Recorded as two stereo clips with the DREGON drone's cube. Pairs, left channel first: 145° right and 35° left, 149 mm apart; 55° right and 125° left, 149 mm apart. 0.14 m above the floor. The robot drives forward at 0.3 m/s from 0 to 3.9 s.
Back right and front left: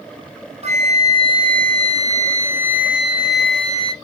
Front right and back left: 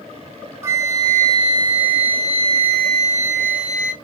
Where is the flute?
55° left, 1.0 m; by 3.9 s 130° left, 1.0 m.